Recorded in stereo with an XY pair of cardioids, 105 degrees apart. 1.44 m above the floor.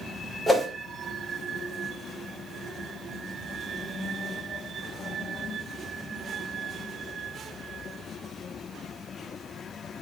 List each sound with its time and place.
0.5 s a whoosh: 5° left, 1.7 m